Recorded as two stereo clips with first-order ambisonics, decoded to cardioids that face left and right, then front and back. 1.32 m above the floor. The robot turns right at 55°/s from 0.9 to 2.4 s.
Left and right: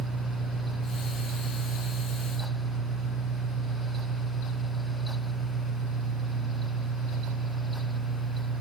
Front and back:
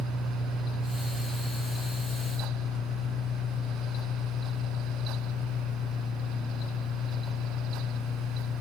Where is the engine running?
115° right, 1.6 m; by 8.6 s 30° right, 1.6 m.